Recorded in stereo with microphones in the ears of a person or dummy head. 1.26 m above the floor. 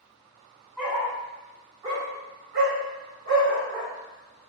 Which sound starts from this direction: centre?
A dog barking, at 0.8 s.